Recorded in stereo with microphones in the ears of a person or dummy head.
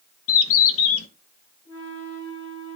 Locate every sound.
0.3 s a bird: 70° left (ahead or behind), 0.8 m
1.6 s a flute: 10° left (ahead or behind), 4.5 m